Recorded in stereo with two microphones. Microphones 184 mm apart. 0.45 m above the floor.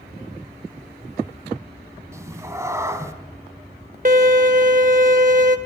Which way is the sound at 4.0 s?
45° right (ahead or behind).